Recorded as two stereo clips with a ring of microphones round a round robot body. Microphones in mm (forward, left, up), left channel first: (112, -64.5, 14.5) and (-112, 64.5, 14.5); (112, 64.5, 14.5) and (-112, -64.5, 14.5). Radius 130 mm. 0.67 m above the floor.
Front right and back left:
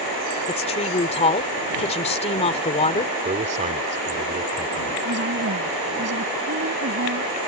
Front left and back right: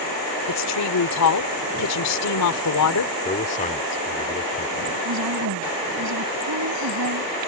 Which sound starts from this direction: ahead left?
A woman speaking, at 0.5 s.